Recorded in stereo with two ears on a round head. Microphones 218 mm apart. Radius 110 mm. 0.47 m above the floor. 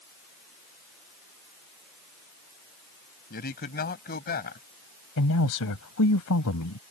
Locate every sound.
3.3 s a man speaking: 40° left (ahead or behind)
5.2 s a man speaking: 70° left (ahead or behind)